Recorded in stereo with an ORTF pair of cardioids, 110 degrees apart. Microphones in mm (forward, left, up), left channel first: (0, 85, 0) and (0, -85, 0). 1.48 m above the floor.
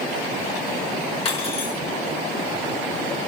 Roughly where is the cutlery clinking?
Ahead left.